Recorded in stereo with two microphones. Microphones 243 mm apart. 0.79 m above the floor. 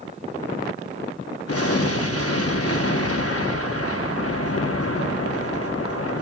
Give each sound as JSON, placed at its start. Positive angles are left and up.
{"t": 1.5, "sound": "an explosion", "side_deg": 70, "distance_m": 0.9}